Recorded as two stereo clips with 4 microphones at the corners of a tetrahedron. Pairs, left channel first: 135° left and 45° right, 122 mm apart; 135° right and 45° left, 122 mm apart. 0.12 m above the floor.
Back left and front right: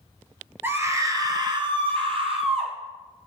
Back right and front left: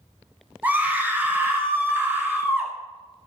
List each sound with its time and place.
0.6 s a scream: 10° right, 1.1 m; by 2.7 s 25° right, 2 m